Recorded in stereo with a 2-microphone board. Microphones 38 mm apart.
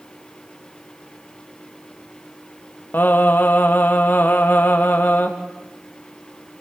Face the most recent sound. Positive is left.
turn(degrees=60)  # may be behind; listen again after turning